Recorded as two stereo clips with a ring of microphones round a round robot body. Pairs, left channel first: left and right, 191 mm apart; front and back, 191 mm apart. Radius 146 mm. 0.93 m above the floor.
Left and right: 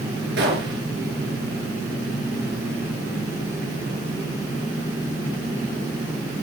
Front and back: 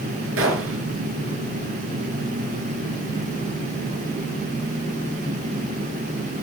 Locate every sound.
0.4 s a gunshot: 145° right, 3.5 m